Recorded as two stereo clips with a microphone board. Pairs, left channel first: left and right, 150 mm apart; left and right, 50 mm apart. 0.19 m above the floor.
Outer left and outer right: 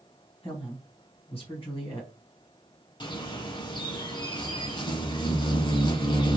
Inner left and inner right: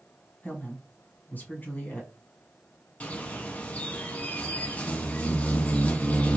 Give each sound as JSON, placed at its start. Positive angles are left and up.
{"t": 0.4, "sound": "a woman speaking", "side_deg": 35, "distance_m": 1.4}
{"t": 3.0, "sound": "a bird", "side_deg": 30, "distance_m": 0.8}